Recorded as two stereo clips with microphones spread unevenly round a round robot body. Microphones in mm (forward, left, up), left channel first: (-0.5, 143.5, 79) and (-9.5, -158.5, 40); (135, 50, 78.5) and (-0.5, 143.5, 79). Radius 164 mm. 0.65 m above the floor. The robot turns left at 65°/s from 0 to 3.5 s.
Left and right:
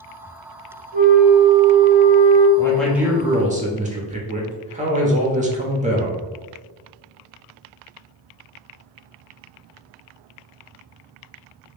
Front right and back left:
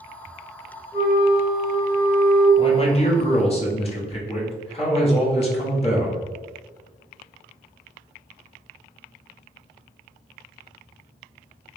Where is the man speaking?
5° left, 1.0 m; by 6.2 s 55° right, 1.0 m.